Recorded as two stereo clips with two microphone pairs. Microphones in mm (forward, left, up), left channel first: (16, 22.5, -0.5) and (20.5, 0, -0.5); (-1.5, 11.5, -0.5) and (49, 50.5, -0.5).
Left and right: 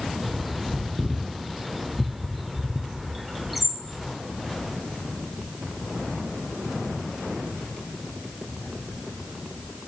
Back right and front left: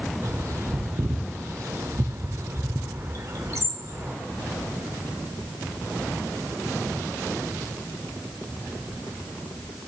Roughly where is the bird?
Ahead.